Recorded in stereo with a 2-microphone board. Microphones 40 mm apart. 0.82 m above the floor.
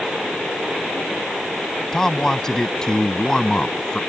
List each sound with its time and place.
1.9 s a man speaking: 15° left (ahead or behind); by 4.0 s 20° left (ahead or behind)